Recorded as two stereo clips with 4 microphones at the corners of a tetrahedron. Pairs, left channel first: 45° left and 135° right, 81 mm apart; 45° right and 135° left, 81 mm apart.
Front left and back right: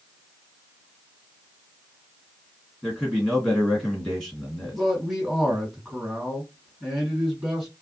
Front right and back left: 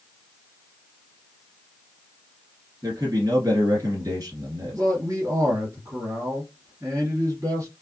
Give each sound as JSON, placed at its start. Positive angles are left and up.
{"t": 2.8, "sound": "a man speaking", "azimuth_deg": 140, "distance_m": 2.0}
{"t": 4.7, "sound": "a man speaking", "azimuth_deg": 140, "distance_m": 2.0}